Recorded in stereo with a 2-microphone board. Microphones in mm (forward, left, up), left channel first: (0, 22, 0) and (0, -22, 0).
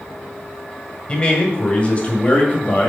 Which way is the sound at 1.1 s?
25° left (ahead or behind).